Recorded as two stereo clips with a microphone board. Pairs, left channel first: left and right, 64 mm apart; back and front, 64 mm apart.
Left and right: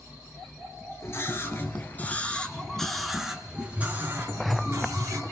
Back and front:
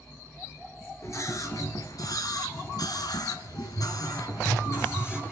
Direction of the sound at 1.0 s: 140° left.